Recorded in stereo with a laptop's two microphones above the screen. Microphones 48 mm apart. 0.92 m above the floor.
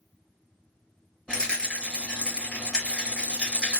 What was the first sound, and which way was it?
A rattle, 25° left (ahead or behind).